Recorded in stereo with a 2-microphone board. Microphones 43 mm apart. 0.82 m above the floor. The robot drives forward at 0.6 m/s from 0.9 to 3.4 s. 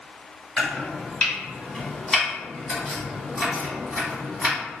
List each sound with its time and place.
0.6 s chopping: 20° left (ahead or behind), 1.2 m; by 4.6 s 10° left (ahead or behind), 2.5 m